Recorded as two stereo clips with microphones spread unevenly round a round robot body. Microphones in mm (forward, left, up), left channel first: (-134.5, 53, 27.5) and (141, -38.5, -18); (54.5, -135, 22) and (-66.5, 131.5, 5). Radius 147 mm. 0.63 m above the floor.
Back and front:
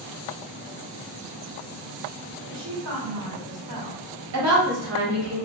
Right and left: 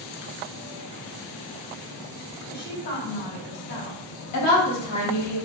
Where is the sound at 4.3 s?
35° right, 1.4 m.